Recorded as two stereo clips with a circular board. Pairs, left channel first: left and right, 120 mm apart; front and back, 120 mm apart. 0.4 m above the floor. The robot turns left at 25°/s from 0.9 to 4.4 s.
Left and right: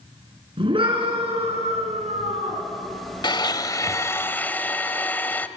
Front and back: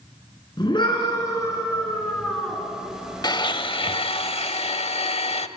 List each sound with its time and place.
0.6 s a scream: 45° right, 6 m; by 2.6 s 90° right, 6 m
3.2 s a blender: 45° left, 0.9 m; by 5.5 s 20° left, 0.9 m